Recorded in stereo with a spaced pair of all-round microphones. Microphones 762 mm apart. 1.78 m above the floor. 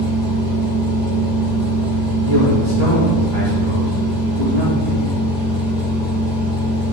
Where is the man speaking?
65° right (ahead or behind), 3.5 m.